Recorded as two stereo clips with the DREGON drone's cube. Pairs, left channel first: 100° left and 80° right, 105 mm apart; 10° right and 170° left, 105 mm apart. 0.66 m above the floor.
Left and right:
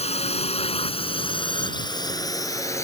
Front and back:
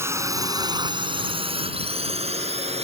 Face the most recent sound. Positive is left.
turn(degrees=165)